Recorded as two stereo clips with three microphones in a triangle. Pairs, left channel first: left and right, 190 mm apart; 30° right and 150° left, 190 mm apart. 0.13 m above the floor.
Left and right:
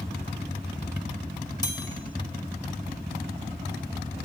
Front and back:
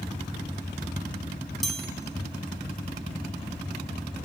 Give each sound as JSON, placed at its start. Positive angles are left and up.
{"t": 1.6, "sound": "a chime", "azimuth_deg": 60, "distance_m": 1.0}